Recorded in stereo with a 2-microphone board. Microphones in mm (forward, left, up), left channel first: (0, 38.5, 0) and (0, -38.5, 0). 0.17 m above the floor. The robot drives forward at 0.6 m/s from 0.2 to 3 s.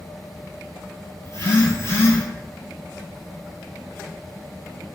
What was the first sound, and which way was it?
A phone buzzing, 45° left (ahead or behind).